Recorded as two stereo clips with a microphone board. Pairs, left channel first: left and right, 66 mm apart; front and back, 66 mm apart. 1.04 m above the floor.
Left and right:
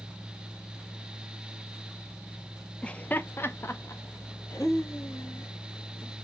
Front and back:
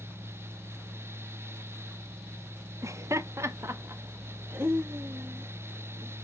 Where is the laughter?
160° left, 0.6 m; by 6.2 s 120° left, 2 m.